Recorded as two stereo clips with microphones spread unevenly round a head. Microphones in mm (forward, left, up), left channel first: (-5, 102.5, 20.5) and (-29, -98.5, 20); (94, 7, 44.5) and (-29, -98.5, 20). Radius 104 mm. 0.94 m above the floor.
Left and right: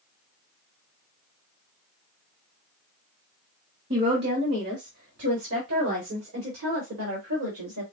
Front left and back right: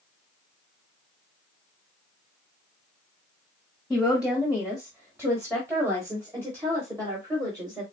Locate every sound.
3.9 s a woman speaking: 55° right, 1.9 m; by 7.8 s 75° right, 3.5 m